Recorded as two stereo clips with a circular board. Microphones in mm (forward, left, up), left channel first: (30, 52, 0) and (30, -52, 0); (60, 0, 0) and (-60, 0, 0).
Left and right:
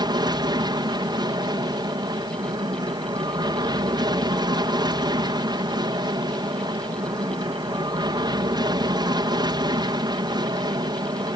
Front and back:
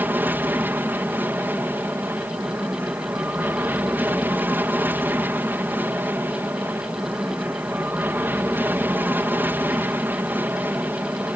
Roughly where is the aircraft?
Right.